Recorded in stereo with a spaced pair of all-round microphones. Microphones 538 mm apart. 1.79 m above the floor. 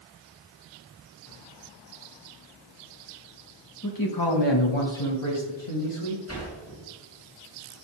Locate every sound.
3.8 s a man speaking: 35° left (ahead or behind), 1.2 m; by 6.2 s 70° left (ahead or behind), 1.9 m
6.3 s a sliding door: 25° left (ahead or behind), 3 m